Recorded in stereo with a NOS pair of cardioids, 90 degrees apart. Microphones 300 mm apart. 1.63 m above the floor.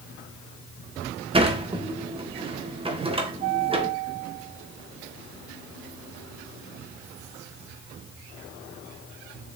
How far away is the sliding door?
About 1.6 m.